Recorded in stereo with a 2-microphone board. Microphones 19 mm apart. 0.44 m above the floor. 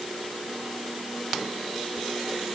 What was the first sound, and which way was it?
Only background noise.